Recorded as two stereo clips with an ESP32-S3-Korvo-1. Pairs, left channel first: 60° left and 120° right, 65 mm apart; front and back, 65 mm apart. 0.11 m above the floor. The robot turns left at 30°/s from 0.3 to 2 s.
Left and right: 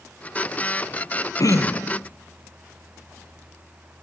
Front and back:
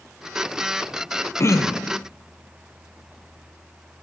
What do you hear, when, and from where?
1.4 s throat clearing: 40° left, 0.5 m; by 2.0 s 25° left, 0.5 m